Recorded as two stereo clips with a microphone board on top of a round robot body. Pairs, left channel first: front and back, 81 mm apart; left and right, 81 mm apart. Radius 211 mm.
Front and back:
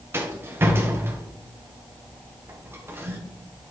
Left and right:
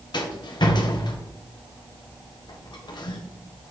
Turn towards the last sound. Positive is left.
turn(degrees=120)